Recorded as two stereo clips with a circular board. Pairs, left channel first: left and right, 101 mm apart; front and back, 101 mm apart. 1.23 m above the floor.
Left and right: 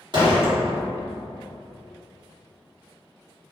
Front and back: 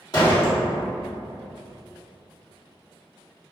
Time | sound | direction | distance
0.1 | a door slam | 50° right | 1.5 m